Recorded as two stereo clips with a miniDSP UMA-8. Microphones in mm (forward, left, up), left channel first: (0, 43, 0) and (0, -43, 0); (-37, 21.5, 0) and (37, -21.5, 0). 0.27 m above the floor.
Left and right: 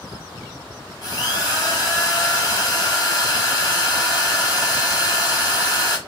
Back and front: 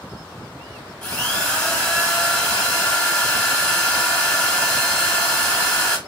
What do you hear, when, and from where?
1.0 s a drill: 70° left, 1.9 m